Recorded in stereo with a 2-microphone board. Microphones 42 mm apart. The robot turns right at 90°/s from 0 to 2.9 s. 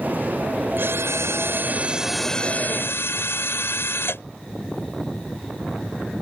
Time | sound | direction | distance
0.8 | a drill | 130° right | ?